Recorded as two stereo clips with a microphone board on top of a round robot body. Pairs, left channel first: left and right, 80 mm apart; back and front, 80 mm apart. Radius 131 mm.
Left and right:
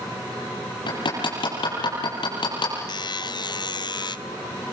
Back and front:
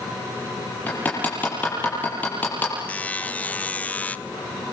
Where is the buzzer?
110° left, 1.1 m.